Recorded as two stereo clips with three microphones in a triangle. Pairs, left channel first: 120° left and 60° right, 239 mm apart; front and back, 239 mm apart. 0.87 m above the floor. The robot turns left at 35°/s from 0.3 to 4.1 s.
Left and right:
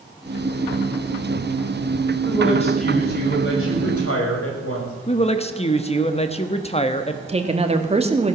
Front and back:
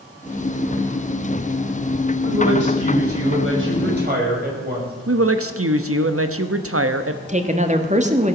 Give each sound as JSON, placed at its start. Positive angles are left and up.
{"t": 2.2, "sound": "a woman speaking", "azimuth_deg": -165, "distance_m": 5.5}
{"t": 5.1, "sound": "a woman speaking", "azimuth_deg": 180, "distance_m": 1.1}
{"t": 7.3, "sound": "a woman speaking", "azimuth_deg": -120, "distance_m": 1.7}